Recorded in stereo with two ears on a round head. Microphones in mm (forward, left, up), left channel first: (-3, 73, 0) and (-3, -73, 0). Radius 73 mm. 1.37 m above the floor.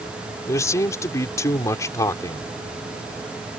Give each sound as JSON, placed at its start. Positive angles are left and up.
{"t": 0.5, "sound": "a man speaking", "side_deg": 20}